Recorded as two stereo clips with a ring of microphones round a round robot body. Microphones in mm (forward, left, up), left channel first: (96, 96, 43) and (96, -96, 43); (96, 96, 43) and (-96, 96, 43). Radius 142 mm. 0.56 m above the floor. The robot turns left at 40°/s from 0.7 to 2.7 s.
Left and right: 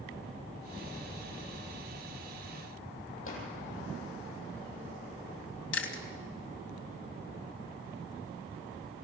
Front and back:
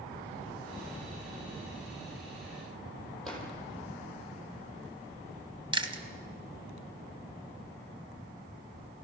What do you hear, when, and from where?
3.2 s a drawer: 90° left, 8.5 m
5.7 s chewing: 115° left, 2 m